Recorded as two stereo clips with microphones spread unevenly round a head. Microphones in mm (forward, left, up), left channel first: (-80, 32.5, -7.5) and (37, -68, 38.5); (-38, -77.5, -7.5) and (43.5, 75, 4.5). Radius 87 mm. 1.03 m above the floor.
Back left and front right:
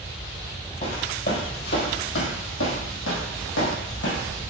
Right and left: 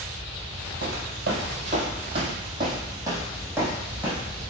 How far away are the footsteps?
About 1.8 m.